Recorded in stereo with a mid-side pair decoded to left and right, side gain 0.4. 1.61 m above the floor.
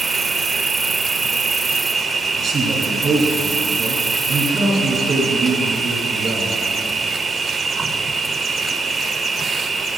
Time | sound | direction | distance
0.0 | an insect | 50° right | 0.7 m
2.4 | a man speaking | 65° right | 3.5 m